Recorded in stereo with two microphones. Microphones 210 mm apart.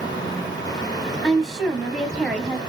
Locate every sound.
1.2 s a woman speaking: centre (ahead or behind), 1.0 m